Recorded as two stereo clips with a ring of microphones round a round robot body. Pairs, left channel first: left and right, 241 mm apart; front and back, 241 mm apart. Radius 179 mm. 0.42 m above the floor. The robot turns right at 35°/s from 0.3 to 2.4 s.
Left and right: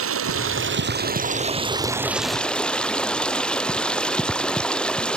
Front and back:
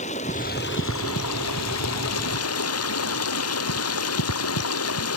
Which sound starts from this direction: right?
Running water, at 0.0 s.